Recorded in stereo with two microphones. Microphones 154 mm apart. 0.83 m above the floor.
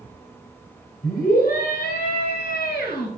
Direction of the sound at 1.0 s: 75° left (ahead or behind).